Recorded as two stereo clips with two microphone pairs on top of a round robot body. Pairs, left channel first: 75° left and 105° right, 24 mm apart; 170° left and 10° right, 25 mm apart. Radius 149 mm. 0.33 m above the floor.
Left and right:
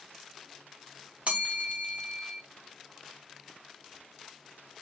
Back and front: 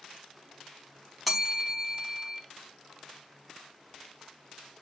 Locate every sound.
1.3 s a bell: 105° right, 1.2 m